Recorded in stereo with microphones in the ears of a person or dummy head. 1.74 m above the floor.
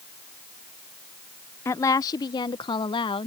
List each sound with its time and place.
1.6 s a woman speaking: 15° left (ahead or behind); by 3.3 s 30° left (ahead or behind)